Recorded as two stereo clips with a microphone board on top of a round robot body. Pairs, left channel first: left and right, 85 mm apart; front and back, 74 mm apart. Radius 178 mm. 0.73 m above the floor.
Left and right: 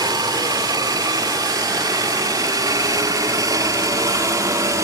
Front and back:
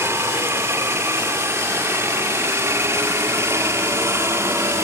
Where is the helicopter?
125° right; by 4.8 s 135° right.